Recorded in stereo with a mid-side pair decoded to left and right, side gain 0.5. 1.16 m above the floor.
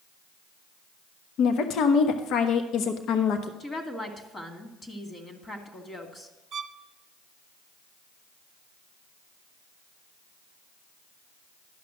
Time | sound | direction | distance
1.4 | a woman speaking | 65° left | 1.0 m
3.6 | a woman speaking | 35° left | 2.5 m
6.5 | a violin | 55° right | 0.5 m